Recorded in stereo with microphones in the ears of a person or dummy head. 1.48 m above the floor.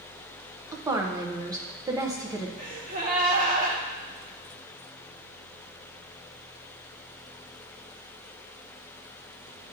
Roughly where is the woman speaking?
Centre.